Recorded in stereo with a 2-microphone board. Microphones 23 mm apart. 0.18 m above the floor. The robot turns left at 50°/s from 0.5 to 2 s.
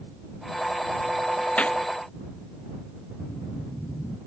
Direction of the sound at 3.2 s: 45° left (ahead or behind).